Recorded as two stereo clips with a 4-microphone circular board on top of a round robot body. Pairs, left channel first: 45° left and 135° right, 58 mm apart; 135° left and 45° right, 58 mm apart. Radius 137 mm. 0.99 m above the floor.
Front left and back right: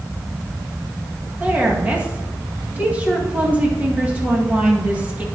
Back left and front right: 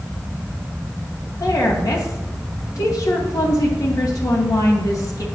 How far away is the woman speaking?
About 2 m.